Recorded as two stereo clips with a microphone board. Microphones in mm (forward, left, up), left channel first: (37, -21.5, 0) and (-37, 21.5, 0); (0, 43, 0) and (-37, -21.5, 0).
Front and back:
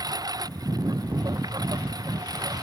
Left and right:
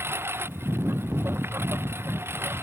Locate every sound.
0.0 s a lawn mower: 175° right